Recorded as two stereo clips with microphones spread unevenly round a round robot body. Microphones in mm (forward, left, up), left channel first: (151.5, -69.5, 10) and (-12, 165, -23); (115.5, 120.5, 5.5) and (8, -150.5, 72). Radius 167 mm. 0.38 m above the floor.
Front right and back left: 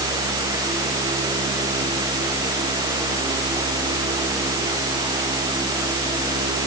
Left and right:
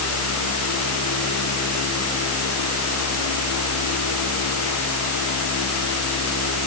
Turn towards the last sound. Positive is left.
No sound to turn to.